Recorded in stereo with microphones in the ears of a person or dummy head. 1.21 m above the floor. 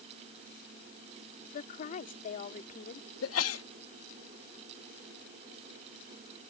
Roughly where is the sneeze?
Left.